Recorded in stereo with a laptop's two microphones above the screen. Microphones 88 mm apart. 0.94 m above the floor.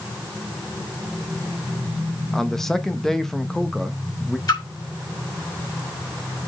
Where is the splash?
55° left (ahead or behind), 4.5 m.